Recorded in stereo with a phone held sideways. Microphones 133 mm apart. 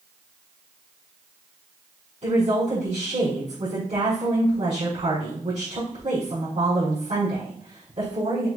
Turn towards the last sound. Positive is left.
turn(degrees=-60)  # may be behind; listen again after turning